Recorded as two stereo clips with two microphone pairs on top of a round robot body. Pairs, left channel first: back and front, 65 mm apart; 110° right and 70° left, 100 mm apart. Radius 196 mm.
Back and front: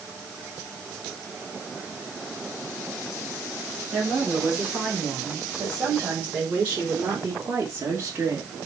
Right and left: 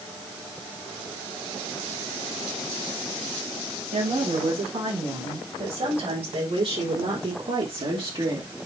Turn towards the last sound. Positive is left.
turn(degrees=40)